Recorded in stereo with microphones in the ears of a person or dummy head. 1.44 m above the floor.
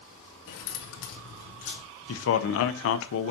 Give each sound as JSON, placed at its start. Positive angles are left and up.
{"t": 0.5, "sound": "keys jangling", "side_deg": 75, "distance_m": 1.3}
{"t": 2.1, "sound": "a man speaking", "side_deg": 80, "distance_m": 0.9}